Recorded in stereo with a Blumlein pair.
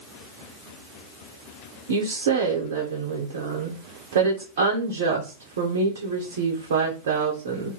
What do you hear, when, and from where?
1.9 s a woman speaking: 60° right, 0.8 m